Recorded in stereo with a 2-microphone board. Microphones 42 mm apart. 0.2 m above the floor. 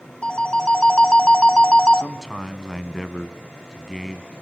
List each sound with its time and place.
0.2 s a phone ringing: 25° left (ahead or behind), 0.7 m
2.0 s a man speaking: 10° left (ahead or behind), 1.7 m